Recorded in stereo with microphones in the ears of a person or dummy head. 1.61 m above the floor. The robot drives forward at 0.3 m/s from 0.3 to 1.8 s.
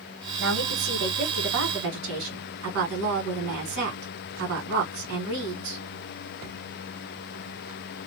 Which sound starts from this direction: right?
A woman speaking, at 0.4 s.